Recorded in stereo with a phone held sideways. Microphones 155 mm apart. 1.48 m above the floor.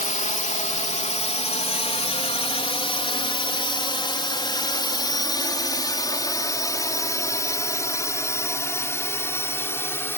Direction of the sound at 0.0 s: 55° left (ahead or behind).